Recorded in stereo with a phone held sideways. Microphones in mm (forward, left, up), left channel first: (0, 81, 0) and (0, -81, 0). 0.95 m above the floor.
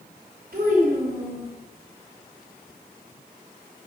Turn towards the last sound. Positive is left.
turn(degrees=-65)  # may be behind; listen again after turning